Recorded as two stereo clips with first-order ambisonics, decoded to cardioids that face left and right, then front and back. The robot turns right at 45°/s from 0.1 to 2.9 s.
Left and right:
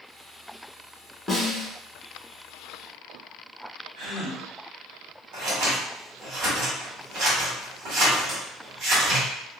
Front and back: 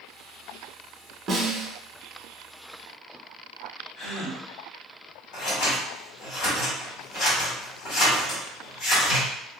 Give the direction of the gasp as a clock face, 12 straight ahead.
2 o'clock.